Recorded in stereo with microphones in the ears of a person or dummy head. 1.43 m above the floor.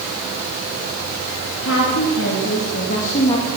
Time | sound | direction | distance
1.6 | a woman speaking | 80° left | 2.5 m